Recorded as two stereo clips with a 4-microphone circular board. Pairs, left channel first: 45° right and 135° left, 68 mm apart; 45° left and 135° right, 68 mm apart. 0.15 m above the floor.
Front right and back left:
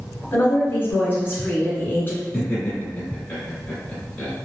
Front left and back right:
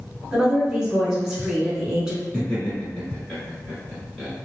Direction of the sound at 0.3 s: 60° right.